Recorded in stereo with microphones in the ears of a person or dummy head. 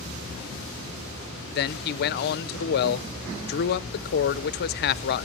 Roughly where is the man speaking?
Left.